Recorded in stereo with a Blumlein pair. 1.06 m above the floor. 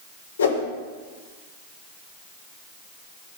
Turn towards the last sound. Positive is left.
turn(degrees=70)